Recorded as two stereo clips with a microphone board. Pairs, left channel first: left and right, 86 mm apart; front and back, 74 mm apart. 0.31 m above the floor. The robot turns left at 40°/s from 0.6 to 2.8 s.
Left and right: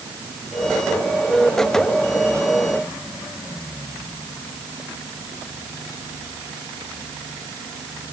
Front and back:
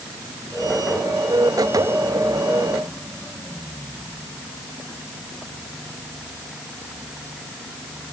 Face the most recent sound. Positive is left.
No sound to turn to.